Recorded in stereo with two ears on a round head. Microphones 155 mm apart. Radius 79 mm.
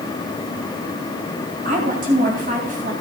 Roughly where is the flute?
I don't hear a flute.